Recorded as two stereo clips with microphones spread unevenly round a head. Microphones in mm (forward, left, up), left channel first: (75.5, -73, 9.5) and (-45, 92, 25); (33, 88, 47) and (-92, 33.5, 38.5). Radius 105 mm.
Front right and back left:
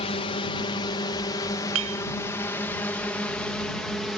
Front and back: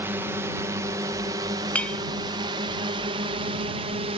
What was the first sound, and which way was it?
A drone, 95° right.